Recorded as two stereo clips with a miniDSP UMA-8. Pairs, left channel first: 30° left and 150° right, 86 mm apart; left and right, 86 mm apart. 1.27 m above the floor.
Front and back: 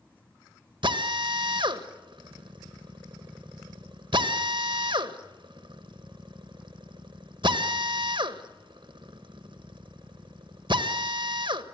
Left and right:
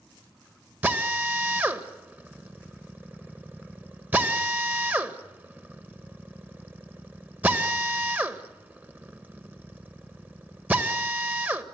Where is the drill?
155° right, 1.5 m.